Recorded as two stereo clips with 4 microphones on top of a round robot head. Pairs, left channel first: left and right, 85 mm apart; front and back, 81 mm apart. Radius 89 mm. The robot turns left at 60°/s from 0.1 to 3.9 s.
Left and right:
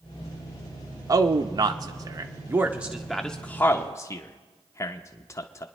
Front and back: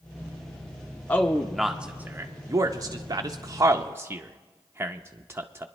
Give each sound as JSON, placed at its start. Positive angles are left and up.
{"t": 1.1, "sound": "a man speaking", "azimuth_deg": -60, "distance_m": 0.7}